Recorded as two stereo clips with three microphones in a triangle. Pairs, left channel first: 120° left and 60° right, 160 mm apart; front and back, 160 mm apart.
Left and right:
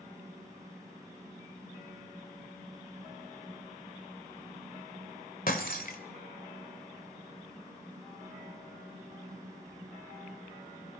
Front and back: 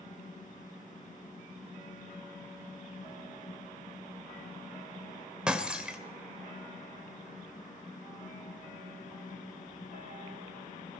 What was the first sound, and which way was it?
Breaking glass, 95° left.